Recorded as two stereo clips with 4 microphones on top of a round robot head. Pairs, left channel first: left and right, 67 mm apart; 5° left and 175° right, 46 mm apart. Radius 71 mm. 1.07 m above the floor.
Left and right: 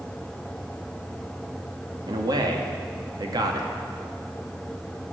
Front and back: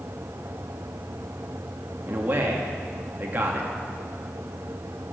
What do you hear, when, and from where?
2.1 s a man speaking: 115° right, 2 m